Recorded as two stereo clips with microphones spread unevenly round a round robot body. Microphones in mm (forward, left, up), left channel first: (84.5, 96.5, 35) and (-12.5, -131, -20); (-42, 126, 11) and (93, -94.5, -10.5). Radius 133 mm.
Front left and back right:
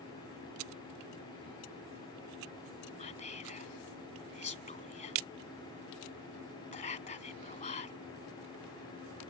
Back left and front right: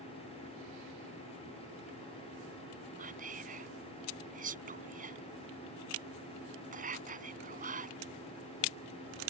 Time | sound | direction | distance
3.0 | whispering | 5° left | ?